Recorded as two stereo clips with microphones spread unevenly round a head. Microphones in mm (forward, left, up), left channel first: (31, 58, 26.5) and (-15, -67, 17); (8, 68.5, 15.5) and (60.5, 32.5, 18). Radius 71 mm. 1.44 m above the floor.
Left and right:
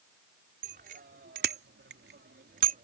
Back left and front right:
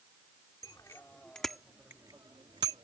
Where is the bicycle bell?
150° right; by 2.9 s 75° right.